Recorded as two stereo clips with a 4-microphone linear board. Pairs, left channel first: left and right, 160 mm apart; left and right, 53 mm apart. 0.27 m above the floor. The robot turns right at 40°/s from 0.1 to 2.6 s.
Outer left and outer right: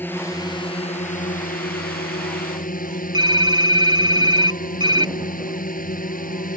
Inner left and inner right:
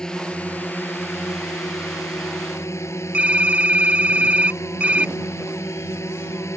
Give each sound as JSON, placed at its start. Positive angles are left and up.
{"t": 0.0, "sound": "a drone", "azimuth_deg": 15}
{"t": 3.1, "sound": "typing on a keyboard", "side_deg": -30}